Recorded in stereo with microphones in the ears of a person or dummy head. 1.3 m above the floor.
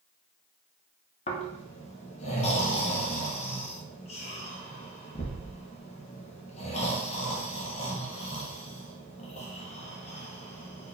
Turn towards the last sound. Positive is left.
turn(degrees=35)  # may be behind; listen again after turning